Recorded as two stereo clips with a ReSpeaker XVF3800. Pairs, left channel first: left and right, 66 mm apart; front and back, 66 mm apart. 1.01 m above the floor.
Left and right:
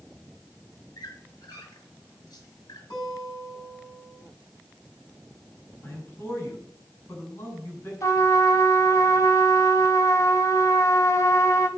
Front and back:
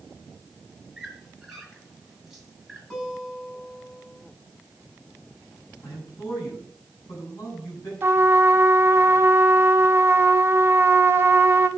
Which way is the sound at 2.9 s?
80° left.